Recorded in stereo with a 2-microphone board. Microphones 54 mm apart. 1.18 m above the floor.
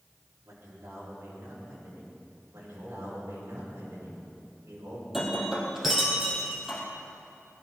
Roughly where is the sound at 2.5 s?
Right.